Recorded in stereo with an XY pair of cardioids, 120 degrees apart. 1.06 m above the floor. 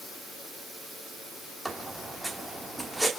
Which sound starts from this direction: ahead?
A squeak, at 1.6 s.